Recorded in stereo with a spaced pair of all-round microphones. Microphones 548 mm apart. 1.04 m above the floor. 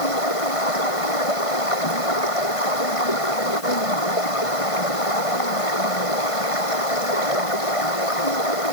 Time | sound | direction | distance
0.0 | running water | 70° left (ahead or behind) | ?